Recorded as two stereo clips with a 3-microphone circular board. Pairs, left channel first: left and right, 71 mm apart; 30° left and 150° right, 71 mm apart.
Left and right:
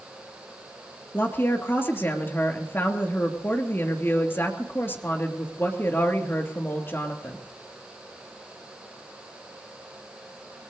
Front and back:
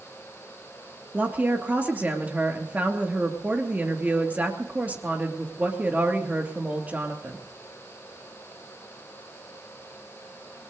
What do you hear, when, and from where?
1.1 s a woman speaking: 145° left, 3 m